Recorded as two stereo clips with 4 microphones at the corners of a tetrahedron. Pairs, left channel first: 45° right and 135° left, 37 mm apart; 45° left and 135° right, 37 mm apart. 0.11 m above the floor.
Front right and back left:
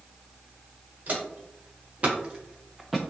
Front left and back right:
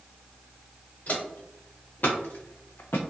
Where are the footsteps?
95° left, 1.4 m; by 3.0 s 45° left, 0.5 m.